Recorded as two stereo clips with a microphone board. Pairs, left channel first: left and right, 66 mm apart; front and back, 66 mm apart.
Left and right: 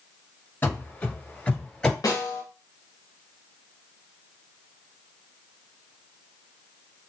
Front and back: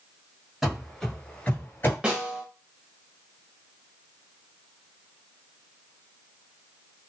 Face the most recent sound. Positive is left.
turn(degrees=110)